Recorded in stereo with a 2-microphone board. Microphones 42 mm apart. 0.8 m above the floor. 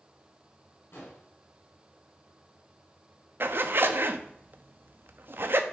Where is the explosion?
70° left (ahead or behind), 4 m.